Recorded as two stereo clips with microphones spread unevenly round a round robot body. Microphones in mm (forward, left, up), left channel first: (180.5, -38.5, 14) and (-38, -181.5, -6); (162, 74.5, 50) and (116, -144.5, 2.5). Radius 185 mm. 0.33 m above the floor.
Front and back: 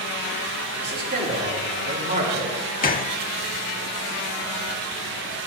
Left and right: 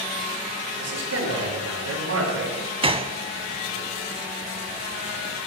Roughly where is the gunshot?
Ahead right.